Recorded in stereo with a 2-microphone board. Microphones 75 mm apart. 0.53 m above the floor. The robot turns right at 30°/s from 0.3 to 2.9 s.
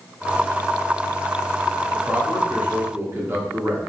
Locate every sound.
1.9 s a man speaking: 20° right (ahead or behind), 0.8 m; by 3.8 s 35° right (ahead or behind), 0.8 m